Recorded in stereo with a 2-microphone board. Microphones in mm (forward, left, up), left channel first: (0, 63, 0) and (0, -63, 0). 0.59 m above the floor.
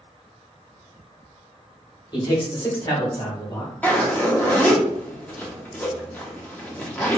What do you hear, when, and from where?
2.1 s a man speaking: 35° left (ahead or behind), 1.4 m; by 3.7 s 40° left (ahead or behind), 2.5 m
3.8 s a zipper: 10° left (ahead or behind), 0.9 m